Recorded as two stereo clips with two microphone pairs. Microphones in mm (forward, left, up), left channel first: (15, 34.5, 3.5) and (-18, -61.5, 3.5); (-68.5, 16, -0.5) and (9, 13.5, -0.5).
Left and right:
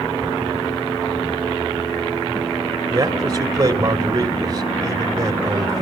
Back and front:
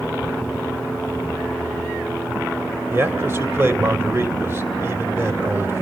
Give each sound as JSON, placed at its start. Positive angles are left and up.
{"t": 2.9, "sound": "a man speaking", "azimuth_deg": -60, "distance_m": 2.0}